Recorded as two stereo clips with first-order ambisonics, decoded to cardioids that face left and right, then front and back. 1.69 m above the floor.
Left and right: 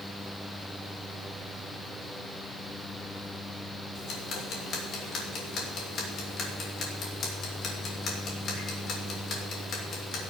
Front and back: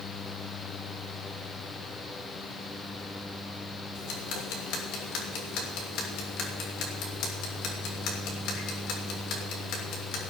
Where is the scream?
No scream in this recording.